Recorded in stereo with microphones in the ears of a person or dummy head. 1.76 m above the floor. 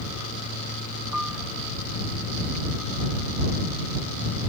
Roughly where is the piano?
Centre.